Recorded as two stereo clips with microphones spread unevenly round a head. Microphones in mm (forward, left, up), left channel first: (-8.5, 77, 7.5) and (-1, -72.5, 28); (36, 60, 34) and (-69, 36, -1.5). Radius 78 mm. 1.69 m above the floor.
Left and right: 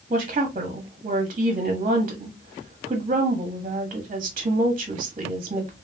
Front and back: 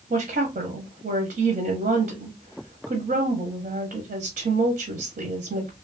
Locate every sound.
0.1 s a woman speaking: 140° right, 0.7 m